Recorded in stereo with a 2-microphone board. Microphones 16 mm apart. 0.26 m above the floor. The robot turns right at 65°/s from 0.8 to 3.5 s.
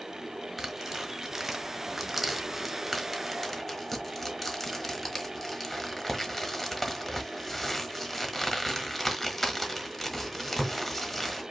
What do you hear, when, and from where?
0.6 s tearing paper: 20° right (ahead or behind), 1.1 m; by 11.4 s 20° left (ahead or behind), 1.1 m